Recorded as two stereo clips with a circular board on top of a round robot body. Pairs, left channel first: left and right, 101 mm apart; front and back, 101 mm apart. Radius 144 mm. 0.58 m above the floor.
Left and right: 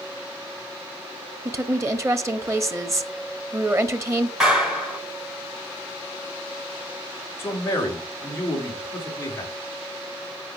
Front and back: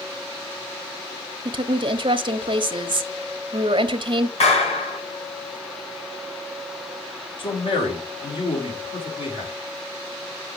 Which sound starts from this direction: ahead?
A clap, at 4.4 s.